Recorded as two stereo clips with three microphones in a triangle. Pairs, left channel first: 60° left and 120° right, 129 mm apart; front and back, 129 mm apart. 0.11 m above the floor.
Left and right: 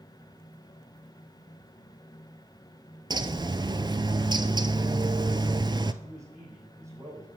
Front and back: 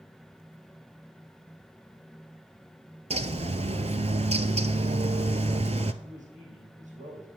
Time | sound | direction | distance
3.1 | a bird | 165° right | 0.5 m
6.0 | a man speaking | 175° left | 4 m